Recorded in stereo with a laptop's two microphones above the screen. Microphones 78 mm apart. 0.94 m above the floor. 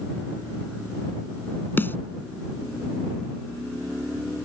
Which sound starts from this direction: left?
A snare drum, at 1.8 s.